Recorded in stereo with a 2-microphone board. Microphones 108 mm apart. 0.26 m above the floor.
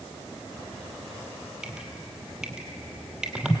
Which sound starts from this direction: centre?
Dripping, at 1.6 s.